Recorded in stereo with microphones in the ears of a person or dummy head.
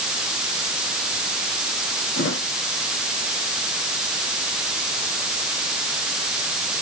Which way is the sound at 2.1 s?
60° left (ahead or behind).